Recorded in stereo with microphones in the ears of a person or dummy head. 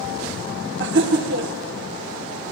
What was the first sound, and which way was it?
Laughter, 60° right (ahead or behind).